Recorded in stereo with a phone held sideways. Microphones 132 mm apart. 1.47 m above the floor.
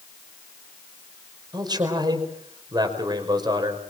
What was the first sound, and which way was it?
A man speaking, 30° right (ahead or behind).